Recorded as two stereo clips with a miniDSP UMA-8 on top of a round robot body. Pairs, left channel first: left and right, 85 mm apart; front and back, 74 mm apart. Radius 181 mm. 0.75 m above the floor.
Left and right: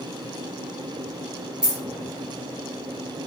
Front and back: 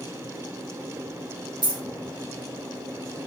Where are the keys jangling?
170° right, 2 m.